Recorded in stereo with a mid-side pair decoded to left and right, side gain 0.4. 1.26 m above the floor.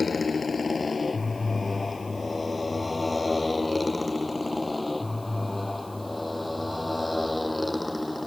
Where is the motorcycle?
35° left; by 8.3 s 5° left.